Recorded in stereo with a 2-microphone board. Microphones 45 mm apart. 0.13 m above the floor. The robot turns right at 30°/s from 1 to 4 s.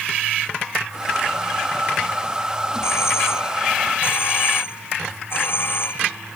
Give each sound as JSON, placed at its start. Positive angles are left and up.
{"t": 2.8, "sound": "a doorbell", "azimuth_deg": 90}